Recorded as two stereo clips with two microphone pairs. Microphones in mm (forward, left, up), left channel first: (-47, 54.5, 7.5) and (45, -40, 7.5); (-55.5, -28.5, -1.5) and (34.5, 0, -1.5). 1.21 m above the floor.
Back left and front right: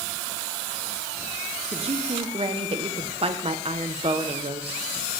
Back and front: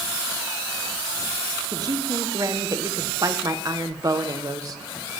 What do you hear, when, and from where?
1.7 s a man speaking: 20° right, 0.9 m